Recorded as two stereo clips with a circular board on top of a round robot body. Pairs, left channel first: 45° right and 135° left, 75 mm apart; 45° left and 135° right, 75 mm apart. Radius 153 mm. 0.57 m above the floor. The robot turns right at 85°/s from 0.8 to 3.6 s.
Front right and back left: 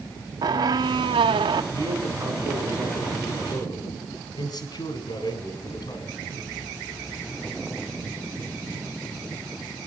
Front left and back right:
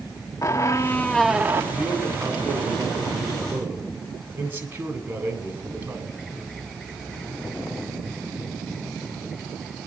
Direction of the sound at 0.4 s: 95° left.